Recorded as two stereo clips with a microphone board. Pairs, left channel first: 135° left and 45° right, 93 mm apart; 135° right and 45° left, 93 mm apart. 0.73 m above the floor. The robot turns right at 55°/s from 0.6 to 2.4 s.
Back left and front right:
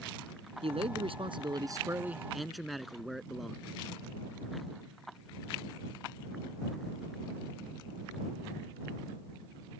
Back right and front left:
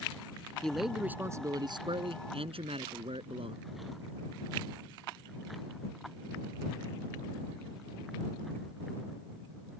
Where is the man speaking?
55° right; by 3.6 s 45° left.